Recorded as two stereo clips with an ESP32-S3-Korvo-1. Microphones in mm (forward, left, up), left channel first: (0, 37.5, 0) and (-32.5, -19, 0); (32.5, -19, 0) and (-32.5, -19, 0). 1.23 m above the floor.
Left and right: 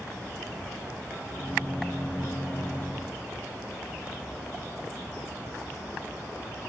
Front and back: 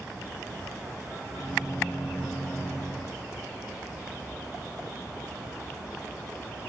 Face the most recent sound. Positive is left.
turn(degrees=-5)